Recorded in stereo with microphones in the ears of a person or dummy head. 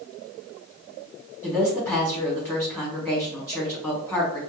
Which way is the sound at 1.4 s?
10° left (ahead or behind).